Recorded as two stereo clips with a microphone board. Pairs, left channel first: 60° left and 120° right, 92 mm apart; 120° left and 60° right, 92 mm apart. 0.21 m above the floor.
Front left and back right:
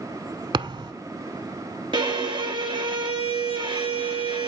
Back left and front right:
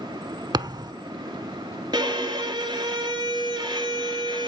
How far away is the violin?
About 1.7 m.